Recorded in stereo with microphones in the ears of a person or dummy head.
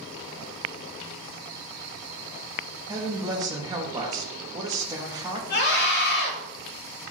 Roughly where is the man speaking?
Centre.